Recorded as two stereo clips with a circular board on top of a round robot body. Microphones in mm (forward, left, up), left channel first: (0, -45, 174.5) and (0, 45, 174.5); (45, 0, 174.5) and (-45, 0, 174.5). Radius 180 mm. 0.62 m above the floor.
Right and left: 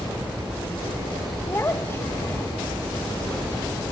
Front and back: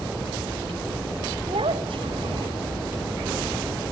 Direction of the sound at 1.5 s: 155° right.